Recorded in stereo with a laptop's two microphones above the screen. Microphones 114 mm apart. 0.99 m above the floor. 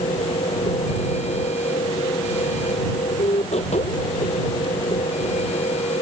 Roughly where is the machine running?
Left.